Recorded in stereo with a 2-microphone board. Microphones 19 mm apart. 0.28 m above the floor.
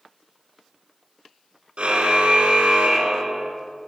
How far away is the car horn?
About 2.5 m.